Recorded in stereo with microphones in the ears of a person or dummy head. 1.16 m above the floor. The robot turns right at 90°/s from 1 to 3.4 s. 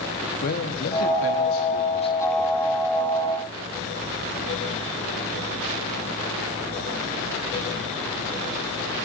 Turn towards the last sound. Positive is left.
turn(degrees=-90)